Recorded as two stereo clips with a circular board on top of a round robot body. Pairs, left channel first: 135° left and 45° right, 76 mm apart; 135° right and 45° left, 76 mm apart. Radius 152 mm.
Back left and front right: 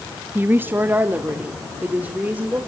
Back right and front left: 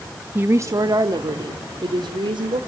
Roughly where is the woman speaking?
Ahead.